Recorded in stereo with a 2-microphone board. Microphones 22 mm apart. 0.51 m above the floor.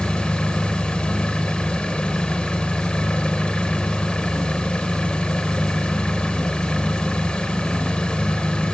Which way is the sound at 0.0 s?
65° left (ahead or behind).